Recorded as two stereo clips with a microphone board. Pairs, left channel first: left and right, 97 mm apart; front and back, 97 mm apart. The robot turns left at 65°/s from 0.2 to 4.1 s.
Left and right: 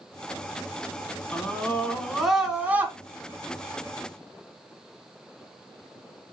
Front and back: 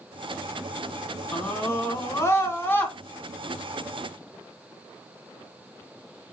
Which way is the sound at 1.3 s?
55° left.